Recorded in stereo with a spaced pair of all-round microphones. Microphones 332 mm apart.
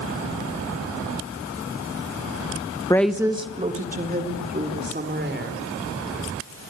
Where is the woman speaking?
10° left (ahead or behind), 0.8 m; by 5.6 s 35° right (ahead or behind), 5 m.